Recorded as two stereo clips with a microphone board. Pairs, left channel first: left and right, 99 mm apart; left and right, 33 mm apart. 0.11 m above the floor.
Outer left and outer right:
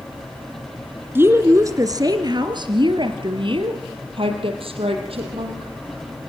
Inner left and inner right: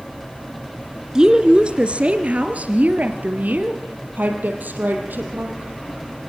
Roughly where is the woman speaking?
Right.